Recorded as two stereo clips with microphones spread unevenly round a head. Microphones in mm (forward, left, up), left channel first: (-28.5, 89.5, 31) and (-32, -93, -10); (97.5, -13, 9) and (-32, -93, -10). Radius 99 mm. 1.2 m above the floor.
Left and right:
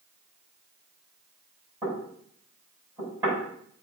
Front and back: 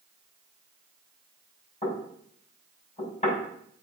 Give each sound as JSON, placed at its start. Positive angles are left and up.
{"t": 1.8, "sound": "knocking", "azimuth_deg": -15, "distance_m": 6.0}